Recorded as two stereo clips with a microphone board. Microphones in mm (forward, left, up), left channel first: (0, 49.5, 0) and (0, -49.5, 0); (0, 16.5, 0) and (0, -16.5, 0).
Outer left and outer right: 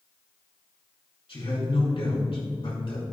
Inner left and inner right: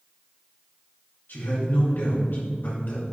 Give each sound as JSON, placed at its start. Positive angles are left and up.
{"t": 1.3, "sound": "a man speaking", "side_deg": 65, "distance_m": 3.5}